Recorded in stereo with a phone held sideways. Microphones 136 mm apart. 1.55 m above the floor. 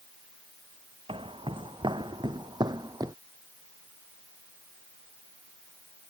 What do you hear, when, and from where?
1.1 s footsteps: 40° right (ahead or behind); by 3.2 s 25° right (ahead or behind)